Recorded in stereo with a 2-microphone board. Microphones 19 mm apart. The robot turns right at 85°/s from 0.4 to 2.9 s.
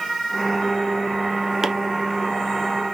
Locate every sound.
1.6 s chopping: 20° right (ahead or behind), 1.2 m